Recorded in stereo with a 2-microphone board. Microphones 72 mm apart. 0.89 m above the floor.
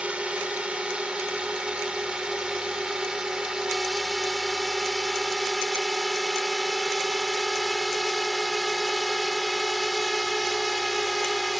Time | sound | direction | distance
0.0 | a drone | 15° right (ahead or behind) | ?